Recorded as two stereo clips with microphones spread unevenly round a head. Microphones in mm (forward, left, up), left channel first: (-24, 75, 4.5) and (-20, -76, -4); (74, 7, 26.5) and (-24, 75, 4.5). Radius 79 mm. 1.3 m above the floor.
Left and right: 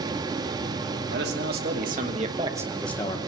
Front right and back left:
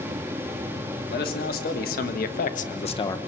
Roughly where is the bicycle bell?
I don't hear a bicycle bell.